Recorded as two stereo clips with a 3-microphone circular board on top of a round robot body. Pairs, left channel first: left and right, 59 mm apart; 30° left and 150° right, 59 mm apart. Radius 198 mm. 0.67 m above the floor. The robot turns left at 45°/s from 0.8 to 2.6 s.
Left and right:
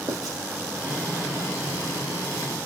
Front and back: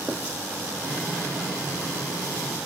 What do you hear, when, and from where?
0.1 s writing: 80° right, 2.0 m